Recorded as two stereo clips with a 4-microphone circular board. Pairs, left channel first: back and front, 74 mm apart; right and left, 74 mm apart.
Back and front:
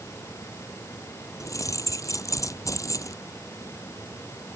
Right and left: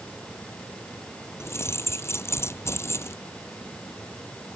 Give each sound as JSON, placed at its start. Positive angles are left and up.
{"t": 1.4, "sound": "keys jangling", "azimuth_deg": -140}